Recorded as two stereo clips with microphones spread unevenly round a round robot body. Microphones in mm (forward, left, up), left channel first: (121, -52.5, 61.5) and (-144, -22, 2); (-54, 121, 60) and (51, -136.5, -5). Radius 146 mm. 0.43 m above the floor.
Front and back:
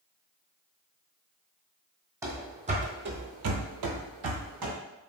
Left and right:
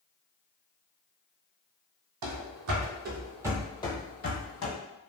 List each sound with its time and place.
2.2 s running footsteps: 100° right, 0.9 m; by 4.7 s 140° left, 0.9 m